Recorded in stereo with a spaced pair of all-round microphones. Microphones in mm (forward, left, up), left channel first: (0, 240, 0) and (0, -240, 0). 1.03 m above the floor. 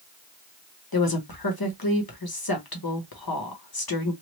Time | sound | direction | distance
0.9 | a woman speaking | 45° left (ahead or behind) | 0.9 m